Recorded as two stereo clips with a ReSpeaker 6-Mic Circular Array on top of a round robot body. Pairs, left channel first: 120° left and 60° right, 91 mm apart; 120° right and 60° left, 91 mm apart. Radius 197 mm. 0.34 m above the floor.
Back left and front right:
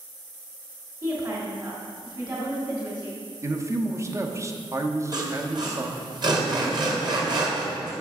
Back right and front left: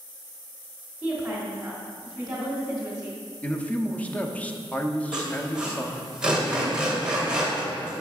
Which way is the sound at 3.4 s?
60° right.